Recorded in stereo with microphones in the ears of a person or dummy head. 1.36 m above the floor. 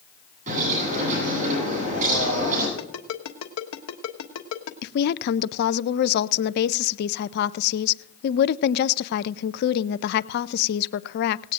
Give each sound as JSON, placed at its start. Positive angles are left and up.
{"t": 0.5, "sound": "a bird", "side_deg": -45, "distance_m": 9.0}
{"t": 2.8, "sound": "a ringtone", "side_deg": 80, "distance_m": 1.3}
{"t": 4.8, "sound": "a woman speaking", "side_deg": 55, "distance_m": 0.5}